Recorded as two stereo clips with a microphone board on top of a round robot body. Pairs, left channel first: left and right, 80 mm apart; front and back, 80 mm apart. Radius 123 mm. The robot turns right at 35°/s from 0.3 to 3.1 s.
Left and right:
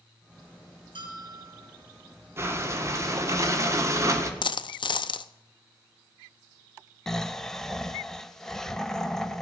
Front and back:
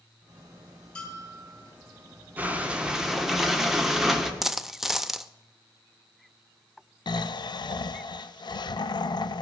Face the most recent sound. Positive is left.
turn(degrees=5)